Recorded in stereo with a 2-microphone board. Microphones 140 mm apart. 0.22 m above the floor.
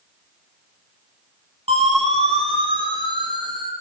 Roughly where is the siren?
Right.